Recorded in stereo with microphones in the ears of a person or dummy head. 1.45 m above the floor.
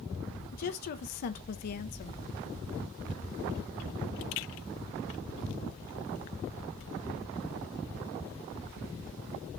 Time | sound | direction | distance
0.5 | a woman speaking | 50° left (ahead or behind) | 0.7 m